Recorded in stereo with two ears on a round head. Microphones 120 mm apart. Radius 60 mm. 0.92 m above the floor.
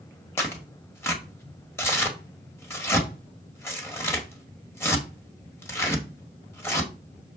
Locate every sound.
0.4 s tearing paper: 20° left (ahead or behind), 1.7 m